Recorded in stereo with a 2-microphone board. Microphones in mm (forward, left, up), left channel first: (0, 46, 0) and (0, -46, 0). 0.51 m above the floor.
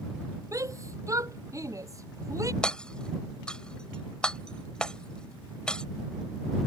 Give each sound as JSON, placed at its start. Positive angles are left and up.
{"t": 0.5, "sound": "a shout", "side_deg": -35}
{"t": 2.6, "sound": "hammering", "side_deg": 10}